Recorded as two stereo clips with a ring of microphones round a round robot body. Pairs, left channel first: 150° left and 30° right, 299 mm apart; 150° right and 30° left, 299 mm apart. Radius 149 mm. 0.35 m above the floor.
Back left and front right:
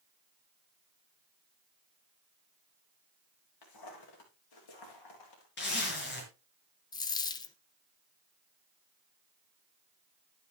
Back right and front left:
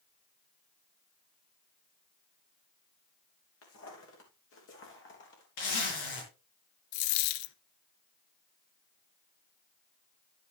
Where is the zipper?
155° right, 5.5 m.